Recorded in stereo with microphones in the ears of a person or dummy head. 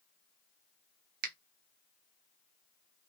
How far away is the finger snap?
About 0.8 m.